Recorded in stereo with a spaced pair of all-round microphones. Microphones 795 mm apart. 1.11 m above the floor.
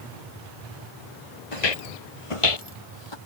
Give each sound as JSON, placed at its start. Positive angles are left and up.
{"t": 1.5, "sound": "footsteps", "side_deg": 45}